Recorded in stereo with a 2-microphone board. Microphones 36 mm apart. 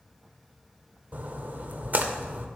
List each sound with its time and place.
1.1 s a splash: 45° right (ahead or behind), 0.5 m